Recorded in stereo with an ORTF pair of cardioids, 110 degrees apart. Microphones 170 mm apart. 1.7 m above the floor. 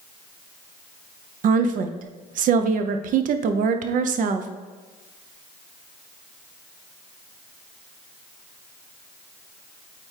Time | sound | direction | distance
1.4 | a woman speaking | 55° right | 0.7 m